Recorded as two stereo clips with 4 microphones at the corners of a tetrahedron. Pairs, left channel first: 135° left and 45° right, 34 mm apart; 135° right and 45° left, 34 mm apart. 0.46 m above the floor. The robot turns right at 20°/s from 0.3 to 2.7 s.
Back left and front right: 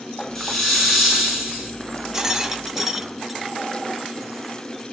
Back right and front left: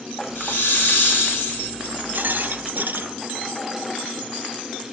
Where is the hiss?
145° right, 5 m; by 1.7 s 115° right, 5 m.